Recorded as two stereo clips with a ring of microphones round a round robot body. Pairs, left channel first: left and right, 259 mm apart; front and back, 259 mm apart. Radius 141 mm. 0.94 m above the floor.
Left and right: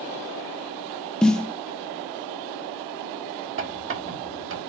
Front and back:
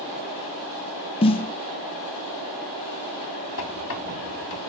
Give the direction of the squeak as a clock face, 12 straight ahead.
2 o'clock.